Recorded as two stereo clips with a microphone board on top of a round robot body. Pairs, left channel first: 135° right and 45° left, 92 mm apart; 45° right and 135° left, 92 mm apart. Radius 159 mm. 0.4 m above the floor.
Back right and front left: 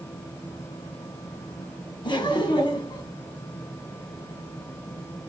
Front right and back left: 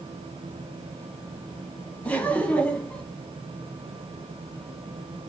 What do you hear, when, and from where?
2.0 s laughter: 115° right, 1.6 m